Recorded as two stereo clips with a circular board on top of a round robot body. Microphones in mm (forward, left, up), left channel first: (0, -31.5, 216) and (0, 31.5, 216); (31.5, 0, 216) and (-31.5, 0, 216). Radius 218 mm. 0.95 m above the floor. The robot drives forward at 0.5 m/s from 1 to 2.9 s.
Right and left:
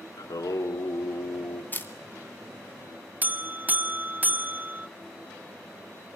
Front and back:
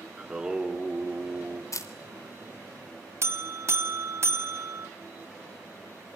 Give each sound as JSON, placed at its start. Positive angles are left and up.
{"t": 0.2, "sound": "singing", "azimuth_deg": -100, "distance_m": 2.0}
{"t": 1.7, "sound": "a camera shutter", "azimuth_deg": -30, "distance_m": 2.0}
{"t": 3.2, "sound": "a buzzer", "azimuth_deg": 145, "distance_m": 1.5}